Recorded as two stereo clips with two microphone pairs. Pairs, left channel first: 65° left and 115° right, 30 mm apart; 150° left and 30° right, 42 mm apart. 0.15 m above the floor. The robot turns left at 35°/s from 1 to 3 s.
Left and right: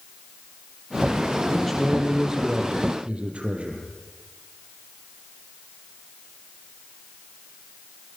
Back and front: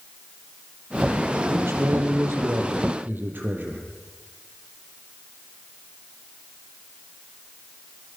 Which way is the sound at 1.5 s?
15° right.